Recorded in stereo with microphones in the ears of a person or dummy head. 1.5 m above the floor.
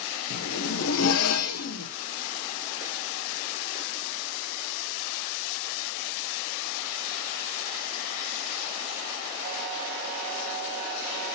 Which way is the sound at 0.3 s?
80° left.